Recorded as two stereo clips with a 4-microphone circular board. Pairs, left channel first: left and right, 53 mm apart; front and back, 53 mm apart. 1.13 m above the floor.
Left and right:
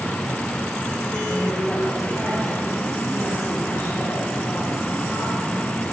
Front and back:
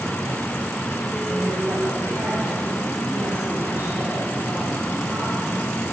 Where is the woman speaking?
155° left, 6.5 m; by 5.7 s 130° left, 10 m.